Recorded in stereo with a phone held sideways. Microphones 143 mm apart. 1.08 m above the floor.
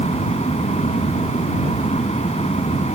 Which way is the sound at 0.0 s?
50° left (ahead or behind).